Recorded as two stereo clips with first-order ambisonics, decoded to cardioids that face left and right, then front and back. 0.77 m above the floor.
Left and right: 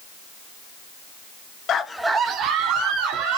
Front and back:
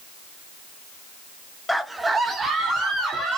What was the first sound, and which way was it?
A scream, 85° left.